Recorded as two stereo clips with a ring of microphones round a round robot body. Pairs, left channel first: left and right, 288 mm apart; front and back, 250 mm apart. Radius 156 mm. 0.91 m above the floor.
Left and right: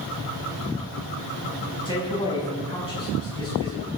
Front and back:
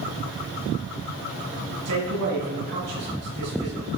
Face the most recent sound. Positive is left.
turn(degrees=165)